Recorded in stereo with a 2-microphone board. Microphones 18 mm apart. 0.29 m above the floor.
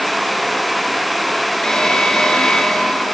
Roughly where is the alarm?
Left.